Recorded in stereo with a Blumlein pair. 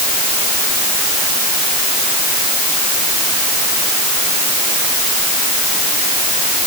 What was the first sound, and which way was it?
Only background noise.